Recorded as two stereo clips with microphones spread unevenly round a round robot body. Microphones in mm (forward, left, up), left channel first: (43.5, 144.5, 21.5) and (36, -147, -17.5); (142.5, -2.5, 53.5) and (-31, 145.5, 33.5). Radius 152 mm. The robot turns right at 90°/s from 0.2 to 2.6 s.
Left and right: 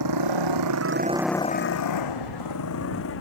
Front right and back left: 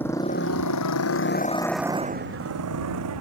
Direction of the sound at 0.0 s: 125° right.